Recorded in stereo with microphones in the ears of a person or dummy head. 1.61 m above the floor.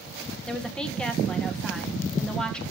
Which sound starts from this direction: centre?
A woman speaking, at 0.5 s.